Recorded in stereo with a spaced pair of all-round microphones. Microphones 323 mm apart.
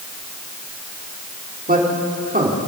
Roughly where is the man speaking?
Right.